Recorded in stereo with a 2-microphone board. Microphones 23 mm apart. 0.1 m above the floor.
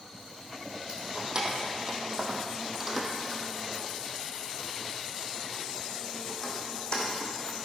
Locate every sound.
0.9 s keys jangling: 35° right (ahead or behind), 2.5 m; by 7.5 s 40° left (ahead or behind), 3.5 m